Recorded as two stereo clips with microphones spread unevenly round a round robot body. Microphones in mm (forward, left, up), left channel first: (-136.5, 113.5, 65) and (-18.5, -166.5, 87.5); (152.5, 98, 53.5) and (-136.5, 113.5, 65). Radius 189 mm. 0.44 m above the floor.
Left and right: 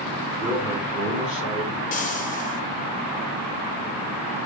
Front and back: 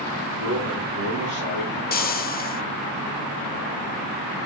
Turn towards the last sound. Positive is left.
turn(degrees=50)